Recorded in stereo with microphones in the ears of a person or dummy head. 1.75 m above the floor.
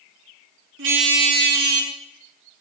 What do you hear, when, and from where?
0.8 s a car horn: 65° right (ahead or behind), 2.5 m; by 1.9 s 50° right (ahead or behind), 3 m